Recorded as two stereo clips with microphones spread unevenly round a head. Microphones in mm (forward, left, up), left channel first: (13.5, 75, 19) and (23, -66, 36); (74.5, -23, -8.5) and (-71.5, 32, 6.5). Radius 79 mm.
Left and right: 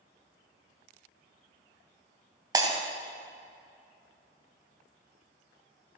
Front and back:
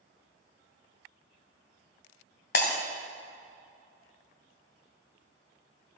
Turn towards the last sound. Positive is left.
turn(degrees=-30)